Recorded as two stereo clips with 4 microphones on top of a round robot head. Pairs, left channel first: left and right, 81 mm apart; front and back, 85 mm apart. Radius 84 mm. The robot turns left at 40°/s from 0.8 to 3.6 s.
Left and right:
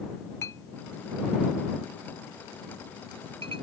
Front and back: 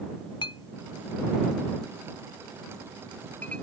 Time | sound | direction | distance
0.4 | a clink | 30° left | ?